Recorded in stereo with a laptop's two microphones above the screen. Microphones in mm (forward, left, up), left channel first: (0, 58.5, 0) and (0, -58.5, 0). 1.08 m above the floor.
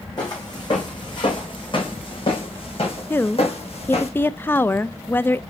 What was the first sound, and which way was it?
Footsteps, 35° left (ahead or behind).